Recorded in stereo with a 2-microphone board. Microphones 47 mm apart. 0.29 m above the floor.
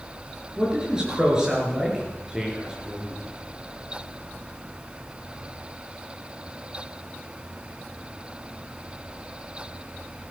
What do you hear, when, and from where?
0.6 s a man speaking: 15° right (ahead or behind), 6 m